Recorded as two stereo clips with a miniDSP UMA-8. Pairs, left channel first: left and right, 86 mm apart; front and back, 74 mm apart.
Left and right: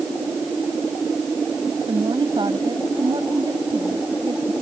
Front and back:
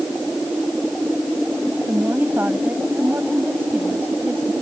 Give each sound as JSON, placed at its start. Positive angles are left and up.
{"t": 1.9, "sound": "a woman speaking", "azimuth_deg": -115}